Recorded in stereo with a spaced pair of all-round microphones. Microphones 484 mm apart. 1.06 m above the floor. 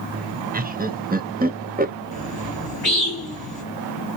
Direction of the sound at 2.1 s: 45° left (ahead or behind).